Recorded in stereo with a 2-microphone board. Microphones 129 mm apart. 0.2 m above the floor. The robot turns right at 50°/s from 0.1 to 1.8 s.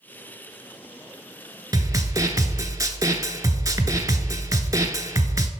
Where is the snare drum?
30° right (ahead or behind), 0.6 m; by 5.5 s 25° right (ahead or behind), 0.6 m.